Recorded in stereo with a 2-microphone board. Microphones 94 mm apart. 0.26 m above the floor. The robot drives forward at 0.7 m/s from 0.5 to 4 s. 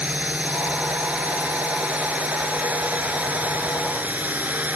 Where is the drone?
15° right (ahead or behind).